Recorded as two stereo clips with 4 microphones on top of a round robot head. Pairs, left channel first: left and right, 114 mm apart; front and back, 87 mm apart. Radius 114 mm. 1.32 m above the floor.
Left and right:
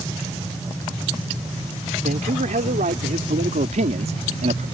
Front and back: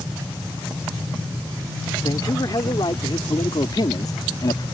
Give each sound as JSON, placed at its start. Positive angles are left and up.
{"t": 2.0, "sound": "a man speaking", "azimuth_deg": -60}